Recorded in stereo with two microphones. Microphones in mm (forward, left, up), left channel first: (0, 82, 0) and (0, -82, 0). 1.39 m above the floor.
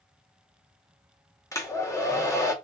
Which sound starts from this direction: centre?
A hair dryer, at 1.5 s.